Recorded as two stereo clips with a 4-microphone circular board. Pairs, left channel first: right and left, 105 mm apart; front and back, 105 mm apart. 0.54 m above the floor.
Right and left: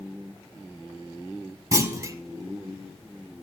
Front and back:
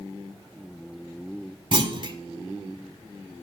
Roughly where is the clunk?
Behind left.